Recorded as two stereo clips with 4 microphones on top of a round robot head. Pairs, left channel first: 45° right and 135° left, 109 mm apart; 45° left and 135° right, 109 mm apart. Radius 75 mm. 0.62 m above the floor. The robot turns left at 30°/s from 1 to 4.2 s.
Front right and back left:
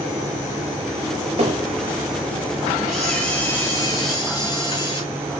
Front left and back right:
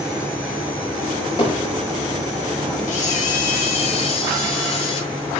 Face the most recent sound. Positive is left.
turn(degrees=5)